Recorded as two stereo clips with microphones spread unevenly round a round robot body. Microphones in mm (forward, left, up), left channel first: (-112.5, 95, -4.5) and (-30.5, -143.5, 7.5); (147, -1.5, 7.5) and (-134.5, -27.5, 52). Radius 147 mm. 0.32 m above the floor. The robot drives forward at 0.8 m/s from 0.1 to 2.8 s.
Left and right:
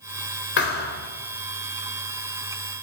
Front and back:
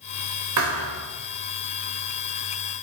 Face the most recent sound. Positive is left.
turn(degrees=160)